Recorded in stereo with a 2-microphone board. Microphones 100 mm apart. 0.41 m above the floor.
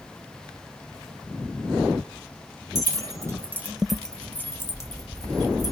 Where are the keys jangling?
35° right (ahead or behind), 0.8 m; by 5.7 s 35° left (ahead or behind), 1.3 m.